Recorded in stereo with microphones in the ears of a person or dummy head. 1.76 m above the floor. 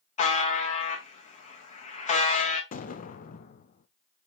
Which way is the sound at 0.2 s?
35° left (ahead or behind).